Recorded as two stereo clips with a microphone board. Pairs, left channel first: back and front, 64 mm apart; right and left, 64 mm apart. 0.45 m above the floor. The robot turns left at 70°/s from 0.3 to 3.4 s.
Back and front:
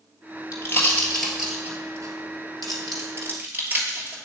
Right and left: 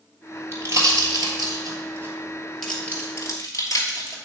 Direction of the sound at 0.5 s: 145° left.